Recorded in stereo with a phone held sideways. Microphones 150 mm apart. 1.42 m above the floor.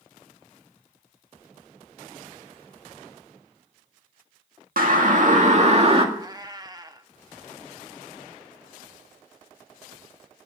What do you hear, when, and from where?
4.8 s a siren: 70° right (ahead or behind), 2 m; by 6.0 s 40° right (ahead or behind), 2 m
6.2 s a cat meowing: 25° right (ahead or behind), 1.0 m